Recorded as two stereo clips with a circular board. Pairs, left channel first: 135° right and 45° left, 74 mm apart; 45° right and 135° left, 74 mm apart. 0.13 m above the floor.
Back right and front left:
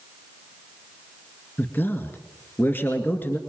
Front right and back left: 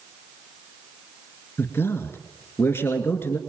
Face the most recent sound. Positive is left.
turn(degrees=-85)